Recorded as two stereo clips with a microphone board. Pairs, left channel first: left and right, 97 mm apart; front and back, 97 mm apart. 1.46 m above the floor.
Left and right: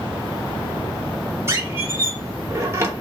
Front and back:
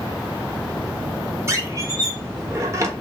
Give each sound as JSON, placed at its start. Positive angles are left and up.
{"t": 1.5, "sound": "a squeak", "azimuth_deg": -140, "distance_m": 0.9}